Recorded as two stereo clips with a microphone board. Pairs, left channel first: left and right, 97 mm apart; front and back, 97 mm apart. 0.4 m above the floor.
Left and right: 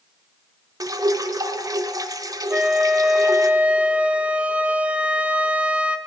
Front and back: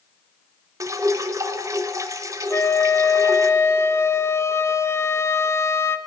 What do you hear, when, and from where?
0.8 s dripping: 130° right, 0.8 m
2.5 s a flute: 25° right, 0.7 m